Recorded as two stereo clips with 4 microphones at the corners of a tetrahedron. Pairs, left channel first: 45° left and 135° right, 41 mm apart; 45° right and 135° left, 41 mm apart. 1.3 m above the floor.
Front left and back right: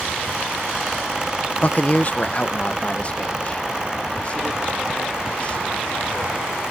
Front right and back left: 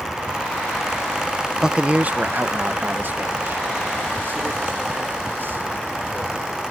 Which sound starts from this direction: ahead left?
A man speaking, at 1.6 s.